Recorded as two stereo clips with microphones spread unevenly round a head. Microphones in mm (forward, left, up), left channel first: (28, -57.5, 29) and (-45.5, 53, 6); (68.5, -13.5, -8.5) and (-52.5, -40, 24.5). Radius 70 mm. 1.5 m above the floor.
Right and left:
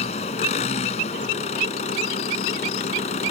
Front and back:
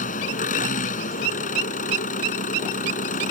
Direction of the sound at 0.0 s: 10° right.